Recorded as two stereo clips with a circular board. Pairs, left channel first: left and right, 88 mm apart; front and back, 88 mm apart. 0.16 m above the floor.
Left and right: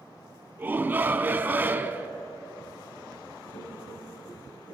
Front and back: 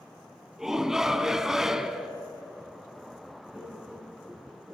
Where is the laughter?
105° left, 8.5 m.